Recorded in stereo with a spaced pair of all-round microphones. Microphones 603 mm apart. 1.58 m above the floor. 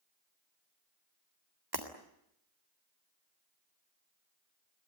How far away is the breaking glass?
About 3.5 m.